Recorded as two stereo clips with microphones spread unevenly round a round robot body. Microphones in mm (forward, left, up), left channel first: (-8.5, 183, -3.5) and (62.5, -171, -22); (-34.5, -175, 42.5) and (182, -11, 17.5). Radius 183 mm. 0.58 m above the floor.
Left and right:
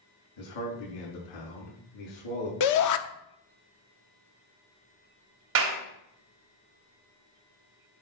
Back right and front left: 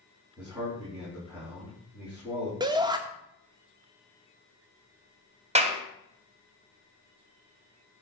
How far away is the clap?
About 2.5 m.